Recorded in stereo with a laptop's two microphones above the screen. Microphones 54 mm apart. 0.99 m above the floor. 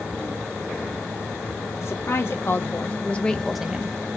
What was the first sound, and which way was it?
A woman speaking, 55° left (ahead or behind).